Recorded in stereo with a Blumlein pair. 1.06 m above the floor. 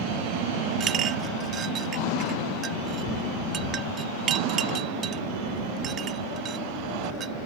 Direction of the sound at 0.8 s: 25° right.